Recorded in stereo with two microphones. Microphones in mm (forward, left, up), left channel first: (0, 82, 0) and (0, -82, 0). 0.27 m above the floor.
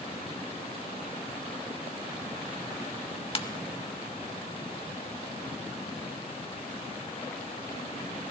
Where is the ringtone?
35° left (ahead or behind), 0.7 m.